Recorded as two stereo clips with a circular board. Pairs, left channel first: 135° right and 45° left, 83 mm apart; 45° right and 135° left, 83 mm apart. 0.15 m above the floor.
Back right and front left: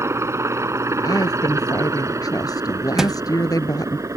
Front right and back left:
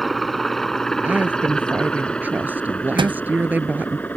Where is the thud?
130° left.